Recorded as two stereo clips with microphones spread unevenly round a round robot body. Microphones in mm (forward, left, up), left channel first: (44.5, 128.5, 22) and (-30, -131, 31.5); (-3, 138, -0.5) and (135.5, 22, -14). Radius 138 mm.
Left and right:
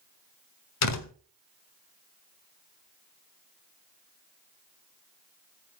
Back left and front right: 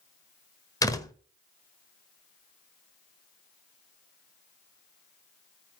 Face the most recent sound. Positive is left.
turn(degrees=65)